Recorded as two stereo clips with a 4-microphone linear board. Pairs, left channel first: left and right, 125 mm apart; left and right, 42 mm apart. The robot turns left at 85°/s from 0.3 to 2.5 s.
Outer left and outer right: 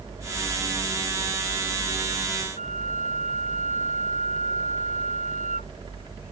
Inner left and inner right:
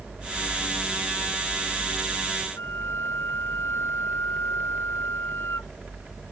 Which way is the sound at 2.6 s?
80° left.